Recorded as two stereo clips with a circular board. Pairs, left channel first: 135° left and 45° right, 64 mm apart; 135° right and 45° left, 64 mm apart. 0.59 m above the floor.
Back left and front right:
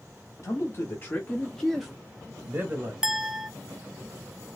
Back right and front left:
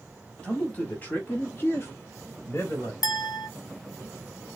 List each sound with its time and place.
0.4 s a man speaking: 155° left, 1.3 m; by 2.9 s 90° right, 1.4 m
3.0 s a clink: 125° right, 0.6 m